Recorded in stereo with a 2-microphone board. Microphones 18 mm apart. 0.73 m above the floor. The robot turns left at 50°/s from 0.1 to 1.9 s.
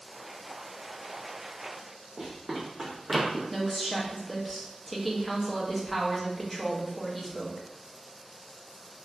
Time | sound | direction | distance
2.2 | running footsteps | 30° right (ahead or behind) | 1.8 m
3.5 | a woman speaking | centre (ahead or behind) | 0.7 m